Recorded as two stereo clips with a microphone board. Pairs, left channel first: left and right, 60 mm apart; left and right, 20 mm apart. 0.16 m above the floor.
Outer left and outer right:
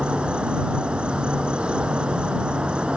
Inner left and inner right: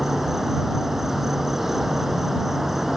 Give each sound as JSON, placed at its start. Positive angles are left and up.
{"t": 0.0, "sound": "an insect", "side_deg": -20}